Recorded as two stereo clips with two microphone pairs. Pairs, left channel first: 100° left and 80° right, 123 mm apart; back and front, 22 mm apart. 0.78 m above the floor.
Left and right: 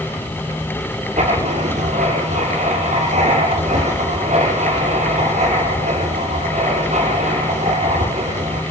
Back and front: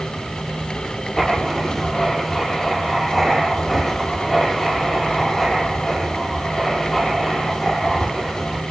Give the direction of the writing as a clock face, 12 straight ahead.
3 o'clock.